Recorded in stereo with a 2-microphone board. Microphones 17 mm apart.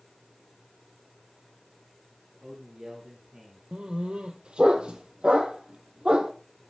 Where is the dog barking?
75° right (ahead or behind), 1.6 m.